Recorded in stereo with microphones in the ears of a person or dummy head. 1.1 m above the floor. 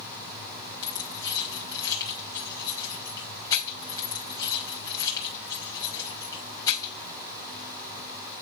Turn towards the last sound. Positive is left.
turn(degrees=25)  # may be behind; listen again after turning